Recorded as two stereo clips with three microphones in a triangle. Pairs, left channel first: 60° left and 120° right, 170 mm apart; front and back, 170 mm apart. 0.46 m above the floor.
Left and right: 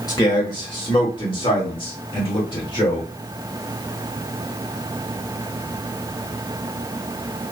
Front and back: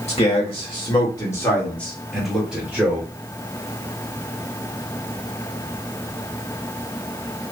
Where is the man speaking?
5° left, 1.7 m; by 3.1 s 110° left, 1.9 m.